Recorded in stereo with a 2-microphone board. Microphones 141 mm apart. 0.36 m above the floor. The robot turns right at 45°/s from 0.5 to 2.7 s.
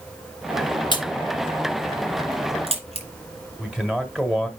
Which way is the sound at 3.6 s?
5° right (ahead or behind).